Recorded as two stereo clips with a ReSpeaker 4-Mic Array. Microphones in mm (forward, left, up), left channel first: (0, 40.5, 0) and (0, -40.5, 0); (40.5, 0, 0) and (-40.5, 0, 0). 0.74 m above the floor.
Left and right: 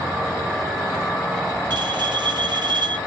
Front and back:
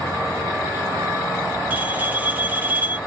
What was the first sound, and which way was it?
A bell, 110° right.